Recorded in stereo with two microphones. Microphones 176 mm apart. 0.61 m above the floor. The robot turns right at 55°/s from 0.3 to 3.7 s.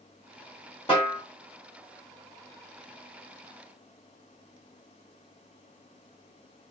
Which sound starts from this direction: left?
A snare drum, at 0.9 s.